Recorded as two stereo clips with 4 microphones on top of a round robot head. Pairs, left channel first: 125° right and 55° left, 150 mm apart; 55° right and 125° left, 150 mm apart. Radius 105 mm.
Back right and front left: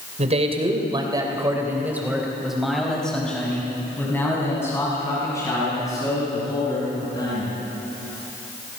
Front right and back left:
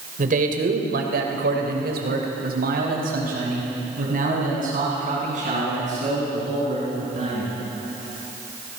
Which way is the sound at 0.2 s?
95° left.